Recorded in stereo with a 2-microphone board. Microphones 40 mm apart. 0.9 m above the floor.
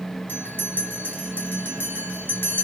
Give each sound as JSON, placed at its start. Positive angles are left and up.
{"t": 0.3, "sound": "a bell", "side_deg": 55, "distance_m": 2.5}